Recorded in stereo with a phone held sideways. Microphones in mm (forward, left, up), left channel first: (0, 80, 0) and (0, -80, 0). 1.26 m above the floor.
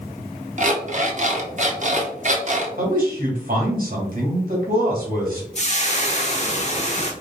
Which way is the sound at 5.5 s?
45° left (ahead or behind).